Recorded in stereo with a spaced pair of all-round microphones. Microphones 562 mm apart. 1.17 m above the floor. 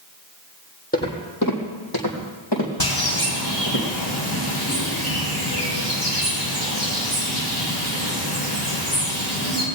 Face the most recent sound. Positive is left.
turn(degrees=40)  # may be behind; listen again after turning